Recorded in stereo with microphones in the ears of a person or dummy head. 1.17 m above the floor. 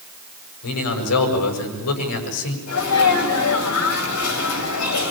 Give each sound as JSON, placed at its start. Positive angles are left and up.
{"t": 0.6, "sound": "a man speaking", "side_deg": 80, "distance_m": 7.0}
{"t": 2.7, "sound": "a sneeze", "side_deg": 75, "distance_m": 7.0}